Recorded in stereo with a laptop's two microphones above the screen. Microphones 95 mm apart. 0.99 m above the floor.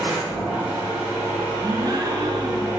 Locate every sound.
0.0 s a machine running: 25° right (ahead or behind), 1.9 m
1.6 s a gasp: 45° right (ahead or behind), 0.7 m